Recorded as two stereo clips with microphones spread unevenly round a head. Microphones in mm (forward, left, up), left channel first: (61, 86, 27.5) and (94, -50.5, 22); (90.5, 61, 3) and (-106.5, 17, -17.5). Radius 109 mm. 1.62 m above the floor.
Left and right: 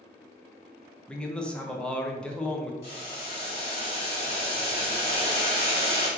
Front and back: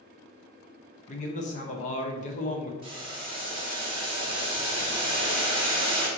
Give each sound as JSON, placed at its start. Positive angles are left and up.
{"t": 1.1, "sound": "a man speaking", "azimuth_deg": 25, "distance_m": 0.6}
{"t": 2.8, "sound": "boiling", "azimuth_deg": 130, "distance_m": 1.3}